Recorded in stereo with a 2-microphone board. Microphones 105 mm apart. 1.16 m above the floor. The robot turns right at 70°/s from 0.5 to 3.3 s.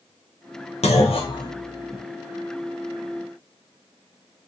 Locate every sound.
0.8 s a clunk: 85° left, 0.5 m; by 2.0 s centre (ahead or behind), 0.5 m